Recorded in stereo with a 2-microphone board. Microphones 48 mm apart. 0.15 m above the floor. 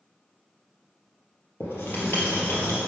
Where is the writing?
60° left (ahead or behind), 2 m.